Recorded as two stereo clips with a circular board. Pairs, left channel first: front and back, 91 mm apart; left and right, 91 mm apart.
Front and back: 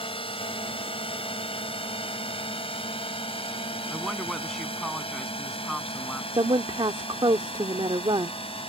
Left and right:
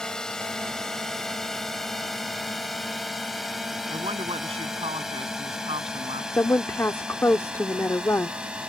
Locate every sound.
0.0 s a drone: 5° left; by 8.7 s 10° right
3.9 s a woman speaking: 90° right
6.3 s a woman speaking: 150° left